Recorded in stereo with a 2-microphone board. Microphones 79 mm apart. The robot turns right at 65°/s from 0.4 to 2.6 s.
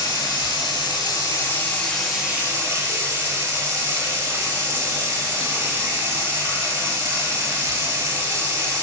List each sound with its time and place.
0.0 s running water: 70° left, 0.7 m; by 8.8 s 150° right, 0.7 m